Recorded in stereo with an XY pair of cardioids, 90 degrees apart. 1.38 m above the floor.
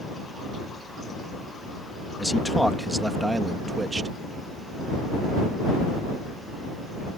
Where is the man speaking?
10° left; by 4.1 s 35° right.